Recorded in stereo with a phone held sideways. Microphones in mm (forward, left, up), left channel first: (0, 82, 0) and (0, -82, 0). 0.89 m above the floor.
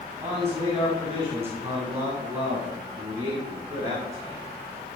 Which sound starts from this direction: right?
A man speaking, at 0.2 s.